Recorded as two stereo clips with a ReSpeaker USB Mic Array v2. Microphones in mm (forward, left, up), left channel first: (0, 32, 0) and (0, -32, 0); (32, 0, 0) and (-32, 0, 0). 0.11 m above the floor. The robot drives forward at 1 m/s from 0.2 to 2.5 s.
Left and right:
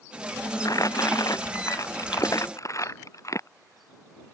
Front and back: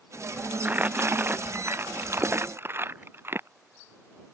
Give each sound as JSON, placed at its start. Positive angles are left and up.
{"t": 0.7, "sound": "crumpling", "azimuth_deg": 115}